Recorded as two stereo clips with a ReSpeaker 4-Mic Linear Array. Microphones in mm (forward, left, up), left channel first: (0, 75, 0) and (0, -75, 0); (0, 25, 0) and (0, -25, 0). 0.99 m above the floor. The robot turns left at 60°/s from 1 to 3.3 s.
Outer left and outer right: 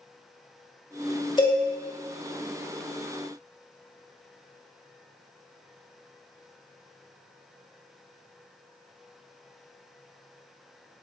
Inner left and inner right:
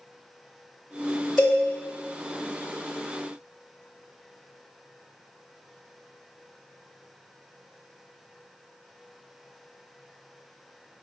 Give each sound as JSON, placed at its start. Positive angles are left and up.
{"t": 1.4, "sound": "a cowbell", "side_deg": 30, "distance_m": 0.7}